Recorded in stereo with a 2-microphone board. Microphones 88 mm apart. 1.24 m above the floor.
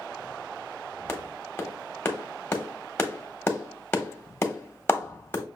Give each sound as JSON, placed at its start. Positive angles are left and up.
{"t": 1.1, "sound": "a clap", "side_deg": 25, "distance_m": 1.1}